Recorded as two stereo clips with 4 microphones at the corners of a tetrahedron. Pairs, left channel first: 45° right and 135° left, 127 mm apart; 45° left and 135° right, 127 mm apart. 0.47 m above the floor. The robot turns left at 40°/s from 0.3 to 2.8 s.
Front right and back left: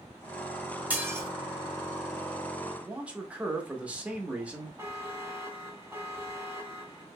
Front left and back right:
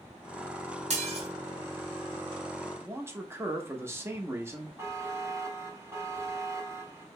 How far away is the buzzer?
About 0.9 m.